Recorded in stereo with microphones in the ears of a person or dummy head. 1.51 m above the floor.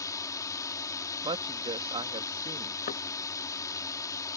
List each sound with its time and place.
0.0 s a drone: 20° left (ahead or behind)
1.2 s a woman speaking: 25° right (ahead or behind)
2.9 s knocking: 40° left (ahead or behind)